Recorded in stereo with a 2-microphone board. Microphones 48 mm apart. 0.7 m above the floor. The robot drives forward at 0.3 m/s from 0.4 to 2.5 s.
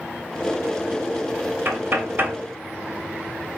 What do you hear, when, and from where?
1.6 s knocking: 50° right (ahead or behind), 2.5 m; by 2.4 s 45° right (ahead or behind), 2.5 m